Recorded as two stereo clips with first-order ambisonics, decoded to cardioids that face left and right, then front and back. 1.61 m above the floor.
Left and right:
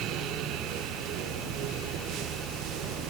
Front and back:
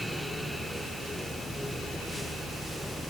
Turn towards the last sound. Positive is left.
No sound to turn to.